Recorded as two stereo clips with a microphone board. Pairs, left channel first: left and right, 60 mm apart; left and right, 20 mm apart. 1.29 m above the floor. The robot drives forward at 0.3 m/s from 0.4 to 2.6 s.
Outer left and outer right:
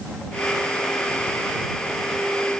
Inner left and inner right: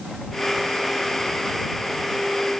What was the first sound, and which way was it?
Only background noise.